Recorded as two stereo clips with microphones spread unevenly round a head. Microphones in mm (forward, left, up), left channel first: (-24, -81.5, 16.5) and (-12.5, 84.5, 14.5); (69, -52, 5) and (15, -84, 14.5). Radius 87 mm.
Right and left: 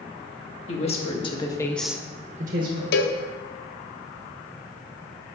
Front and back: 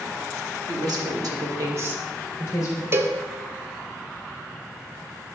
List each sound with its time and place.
0.7 s a woman speaking: 145° right, 1.6 m; by 2.8 s 65° left, 1.1 m
2.9 s a cowbell: 100° right, 0.6 m